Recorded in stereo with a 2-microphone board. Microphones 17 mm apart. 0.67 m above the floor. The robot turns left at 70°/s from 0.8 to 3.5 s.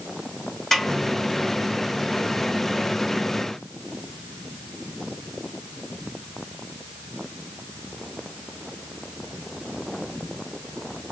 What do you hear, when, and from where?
0.7 s a snare drum: 20° left (ahead or behind), 1.7 m; by 0.9 s 25° left (ahead or behind), 1.7 m